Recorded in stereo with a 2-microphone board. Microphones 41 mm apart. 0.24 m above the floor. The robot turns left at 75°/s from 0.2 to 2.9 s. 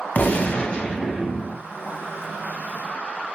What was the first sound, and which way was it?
A gunshot, 70° left.